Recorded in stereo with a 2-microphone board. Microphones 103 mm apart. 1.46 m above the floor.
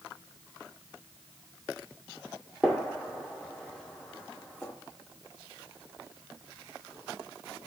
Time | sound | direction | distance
2.6 | a gunshot | 10° left (ahead or behind) | 2 m